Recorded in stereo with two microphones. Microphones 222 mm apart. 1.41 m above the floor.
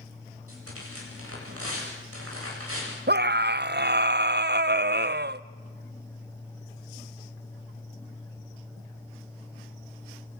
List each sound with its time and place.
0.5 s tearing paper: 75° right (ahead or behind), 9 m
3.1 s a scream: 45° right (ahead or behind), 0.7 m